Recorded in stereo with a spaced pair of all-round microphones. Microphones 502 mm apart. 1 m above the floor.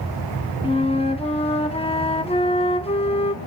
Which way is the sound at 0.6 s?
10° left (ahead or behind).